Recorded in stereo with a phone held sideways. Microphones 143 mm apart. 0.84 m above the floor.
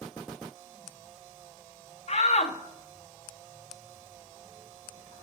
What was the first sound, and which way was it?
A shout, 50° left (ahead or behind).